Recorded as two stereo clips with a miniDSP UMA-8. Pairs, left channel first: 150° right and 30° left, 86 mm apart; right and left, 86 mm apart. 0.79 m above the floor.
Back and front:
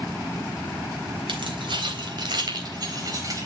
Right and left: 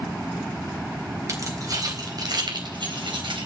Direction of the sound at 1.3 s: 40° left.